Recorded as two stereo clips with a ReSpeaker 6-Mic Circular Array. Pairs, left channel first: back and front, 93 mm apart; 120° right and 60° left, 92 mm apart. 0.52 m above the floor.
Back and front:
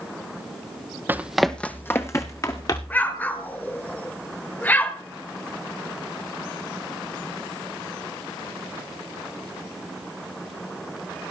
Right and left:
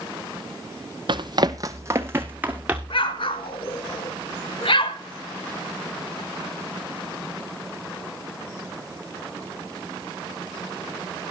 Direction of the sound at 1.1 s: 65° left.